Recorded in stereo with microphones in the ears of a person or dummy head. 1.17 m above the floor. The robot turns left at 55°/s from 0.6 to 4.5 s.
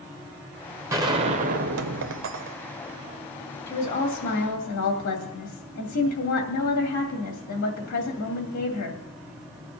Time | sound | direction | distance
0.9 | a gunshot | 20° right | 0.6 m
3.7 | a woman speaking | 140° left | 2.5 m